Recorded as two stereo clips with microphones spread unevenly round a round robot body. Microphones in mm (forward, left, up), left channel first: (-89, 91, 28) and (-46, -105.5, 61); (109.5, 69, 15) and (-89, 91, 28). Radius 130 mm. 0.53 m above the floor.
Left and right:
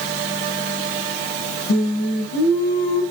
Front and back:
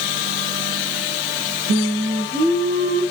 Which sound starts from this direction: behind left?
Singing, at 1.7 s.